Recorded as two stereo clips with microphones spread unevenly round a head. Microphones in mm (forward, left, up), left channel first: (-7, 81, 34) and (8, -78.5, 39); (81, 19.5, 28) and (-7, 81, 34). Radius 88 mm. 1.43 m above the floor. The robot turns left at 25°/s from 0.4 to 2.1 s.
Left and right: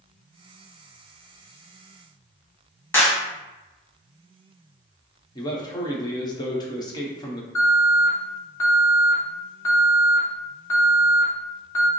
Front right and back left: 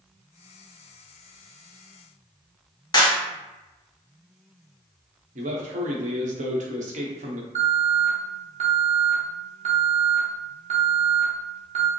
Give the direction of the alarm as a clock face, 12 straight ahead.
6 o'clock.